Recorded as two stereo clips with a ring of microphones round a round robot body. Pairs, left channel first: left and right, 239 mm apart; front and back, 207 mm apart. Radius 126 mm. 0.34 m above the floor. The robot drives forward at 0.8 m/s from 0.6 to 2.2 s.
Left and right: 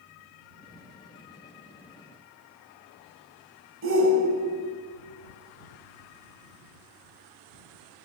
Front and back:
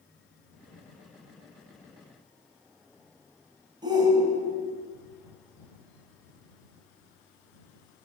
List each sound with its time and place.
3.8 s a shout: 110° right, 2 m